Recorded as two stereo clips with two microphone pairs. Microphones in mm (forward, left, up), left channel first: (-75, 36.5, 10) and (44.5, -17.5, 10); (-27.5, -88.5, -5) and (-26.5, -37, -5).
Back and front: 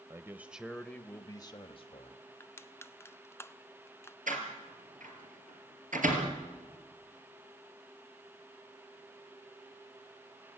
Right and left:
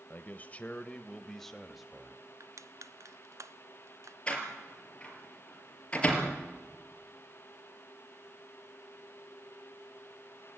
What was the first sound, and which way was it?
A man speaking, 80° right.